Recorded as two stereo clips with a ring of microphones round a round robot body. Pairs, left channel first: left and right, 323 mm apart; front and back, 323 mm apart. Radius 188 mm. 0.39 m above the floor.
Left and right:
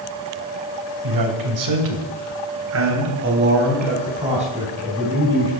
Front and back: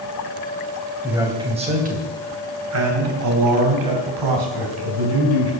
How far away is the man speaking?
About 2.5 m.